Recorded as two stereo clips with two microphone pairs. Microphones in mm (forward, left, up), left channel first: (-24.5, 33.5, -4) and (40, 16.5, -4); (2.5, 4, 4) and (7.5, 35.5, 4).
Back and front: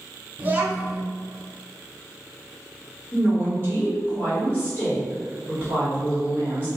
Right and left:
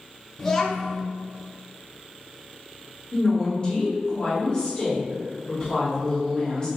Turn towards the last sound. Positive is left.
turn(degrees=-145)